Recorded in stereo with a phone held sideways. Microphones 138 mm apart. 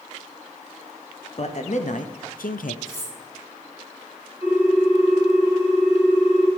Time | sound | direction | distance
1.4 | a man speaking | 50° left (ahead or behind) | 1.1 m
2.9 | cutlery clinking | 20° left (ahead or behind) | 4 m
4.4 | a ringtone | 15° right (ahead or behind) | 4.5 m